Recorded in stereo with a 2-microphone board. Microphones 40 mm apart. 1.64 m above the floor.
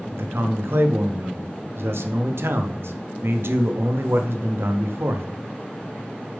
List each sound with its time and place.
0.1 s a man speaking: 80° right, 0.8 m